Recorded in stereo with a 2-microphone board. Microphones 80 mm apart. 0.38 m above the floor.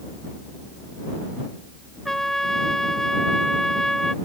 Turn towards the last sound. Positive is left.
turn(degrees=5)  # may be behind; listen again after turning